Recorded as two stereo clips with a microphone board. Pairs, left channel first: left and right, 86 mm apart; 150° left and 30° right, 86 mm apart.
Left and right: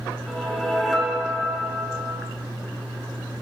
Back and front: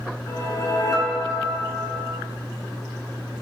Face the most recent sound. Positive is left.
turn(degrees=180)